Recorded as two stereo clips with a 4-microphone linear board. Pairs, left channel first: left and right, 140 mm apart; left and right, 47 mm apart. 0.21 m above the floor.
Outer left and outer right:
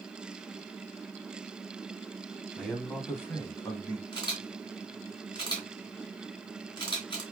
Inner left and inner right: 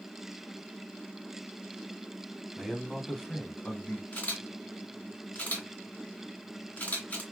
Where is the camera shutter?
35° left (ahead or behind), 3 m.